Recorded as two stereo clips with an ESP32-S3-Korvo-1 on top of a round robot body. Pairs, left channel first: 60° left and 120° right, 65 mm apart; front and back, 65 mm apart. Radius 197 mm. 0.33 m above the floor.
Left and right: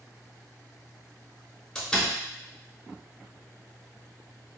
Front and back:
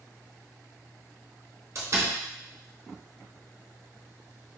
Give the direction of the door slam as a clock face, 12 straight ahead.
7 o'clock.